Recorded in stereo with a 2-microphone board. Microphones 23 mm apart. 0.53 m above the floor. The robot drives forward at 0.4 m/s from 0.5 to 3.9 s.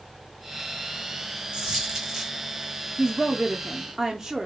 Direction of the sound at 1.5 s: 35° right (ahead or behind).